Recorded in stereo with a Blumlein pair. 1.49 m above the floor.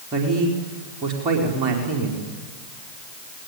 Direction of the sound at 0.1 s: 30° right.